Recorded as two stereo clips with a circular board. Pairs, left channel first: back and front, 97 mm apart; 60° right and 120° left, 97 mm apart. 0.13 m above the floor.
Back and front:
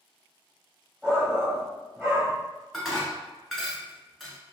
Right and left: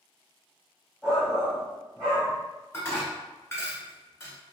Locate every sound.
1.0 s a shout: 30° left, 1.5 m
2.7 s dishes clattering: 95° right, 0.9 m